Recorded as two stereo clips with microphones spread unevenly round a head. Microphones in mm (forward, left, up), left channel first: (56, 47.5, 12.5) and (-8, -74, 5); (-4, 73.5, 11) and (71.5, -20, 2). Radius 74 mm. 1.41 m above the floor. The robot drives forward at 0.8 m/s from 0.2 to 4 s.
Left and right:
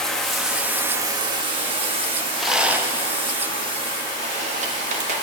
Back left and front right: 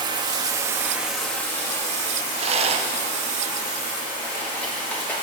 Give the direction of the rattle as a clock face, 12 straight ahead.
1 o'clock.